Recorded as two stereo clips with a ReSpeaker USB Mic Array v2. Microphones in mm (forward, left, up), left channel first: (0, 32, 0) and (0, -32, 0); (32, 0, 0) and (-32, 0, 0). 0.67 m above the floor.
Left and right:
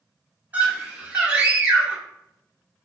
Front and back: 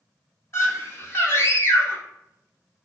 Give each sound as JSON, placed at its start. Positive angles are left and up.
{"t": 0.5, "sound": "a scream", "azimuth_deg": -35, "distance_m": 1.7}